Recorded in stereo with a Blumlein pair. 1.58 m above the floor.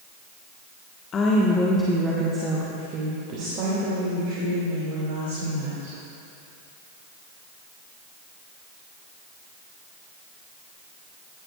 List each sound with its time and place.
1.1 s a woman speaking: 25° left, 1.4 m; by 6.0 s 60° right, 4.5 m